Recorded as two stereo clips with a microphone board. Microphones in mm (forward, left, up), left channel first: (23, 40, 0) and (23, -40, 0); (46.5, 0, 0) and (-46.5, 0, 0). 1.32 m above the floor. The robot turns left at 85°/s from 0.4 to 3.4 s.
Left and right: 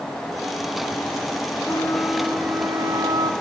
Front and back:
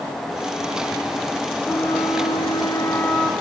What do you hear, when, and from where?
1.6 s a flute: 50° left, 2 m; by 3.3 s 90° right, 2 m